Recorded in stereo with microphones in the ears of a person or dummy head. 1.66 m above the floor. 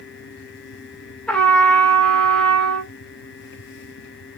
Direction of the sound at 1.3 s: 15° left (ahead or behind).